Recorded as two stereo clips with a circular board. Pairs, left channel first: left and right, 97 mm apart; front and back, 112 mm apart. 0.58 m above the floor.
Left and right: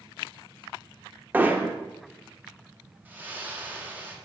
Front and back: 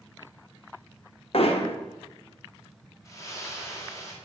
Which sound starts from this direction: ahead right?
A splash, at 3.0 s.